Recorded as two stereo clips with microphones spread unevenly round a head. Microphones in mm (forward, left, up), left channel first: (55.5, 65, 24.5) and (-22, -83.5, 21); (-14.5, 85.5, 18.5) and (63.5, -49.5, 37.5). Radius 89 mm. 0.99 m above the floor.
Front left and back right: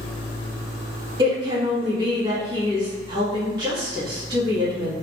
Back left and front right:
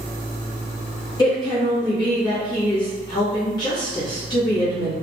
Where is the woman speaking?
Straight behind, 1.9 m.